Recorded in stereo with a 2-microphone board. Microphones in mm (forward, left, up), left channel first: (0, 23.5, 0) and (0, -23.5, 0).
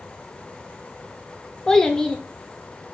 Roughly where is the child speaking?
Centre.